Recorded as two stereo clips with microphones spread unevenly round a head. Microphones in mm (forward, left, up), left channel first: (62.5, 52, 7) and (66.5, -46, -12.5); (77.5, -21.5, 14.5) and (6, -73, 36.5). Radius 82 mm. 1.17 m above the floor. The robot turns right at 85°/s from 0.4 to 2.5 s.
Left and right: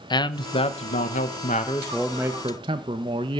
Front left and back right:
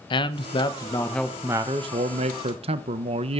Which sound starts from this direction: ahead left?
A man speaking, at 0.1 s.